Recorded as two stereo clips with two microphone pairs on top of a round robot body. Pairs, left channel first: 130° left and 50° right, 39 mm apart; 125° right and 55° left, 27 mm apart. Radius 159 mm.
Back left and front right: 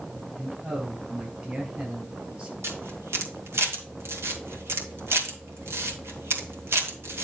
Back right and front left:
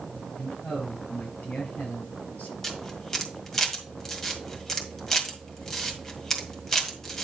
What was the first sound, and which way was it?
A man speaking, 110° right.